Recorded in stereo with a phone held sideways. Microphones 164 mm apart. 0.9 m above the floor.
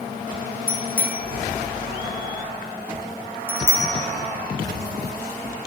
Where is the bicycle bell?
15° right (ahead or behind), 3 m; by 5.7 s 65° left (ahead or behind), 1.2 m.